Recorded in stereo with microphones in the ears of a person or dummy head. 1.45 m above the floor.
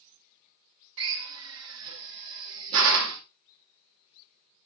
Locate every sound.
1.0 s a drill: 75° right (ahead or behind), 1.5 m